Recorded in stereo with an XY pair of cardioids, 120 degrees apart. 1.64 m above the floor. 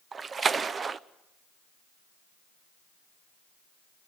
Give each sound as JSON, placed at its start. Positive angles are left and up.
{"t": 0.1, "sound": "a splash", "azimuth_deg": -35, "distance_m": 0.7}